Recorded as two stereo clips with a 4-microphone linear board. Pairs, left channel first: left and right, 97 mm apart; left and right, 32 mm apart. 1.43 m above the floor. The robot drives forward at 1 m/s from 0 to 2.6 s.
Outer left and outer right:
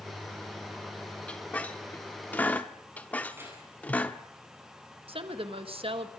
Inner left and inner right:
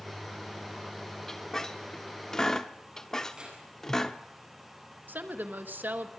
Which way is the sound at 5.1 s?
85° right.